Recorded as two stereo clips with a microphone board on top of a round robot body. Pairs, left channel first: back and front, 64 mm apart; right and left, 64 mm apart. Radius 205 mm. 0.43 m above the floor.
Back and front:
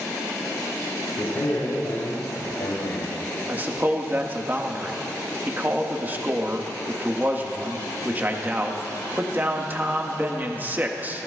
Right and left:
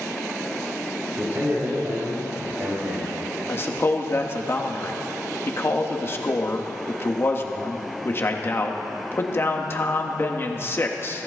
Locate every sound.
1.2 s a man speaking: 135° left, 4 m; by 3.2 s 155° left, 2.5 m
3.5 s a man speaking: 50° right, 1.6 m